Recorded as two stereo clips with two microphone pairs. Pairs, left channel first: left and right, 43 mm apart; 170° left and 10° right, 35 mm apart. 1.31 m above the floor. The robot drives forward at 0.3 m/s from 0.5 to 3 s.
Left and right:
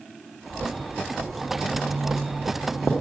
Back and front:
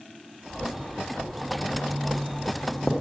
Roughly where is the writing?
Right.